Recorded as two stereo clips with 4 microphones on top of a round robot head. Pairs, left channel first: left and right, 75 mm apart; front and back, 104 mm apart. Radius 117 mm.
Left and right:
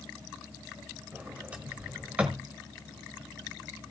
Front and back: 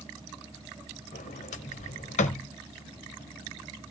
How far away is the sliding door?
About 1.4 m.